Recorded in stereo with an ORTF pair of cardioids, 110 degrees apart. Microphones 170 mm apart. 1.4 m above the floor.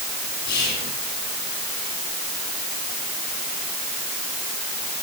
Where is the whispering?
70° left, 4 m.